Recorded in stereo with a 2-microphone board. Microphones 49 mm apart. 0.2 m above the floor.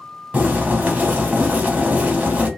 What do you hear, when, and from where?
0.3 s boiling: 30° right (ahead or behind), 0.9 m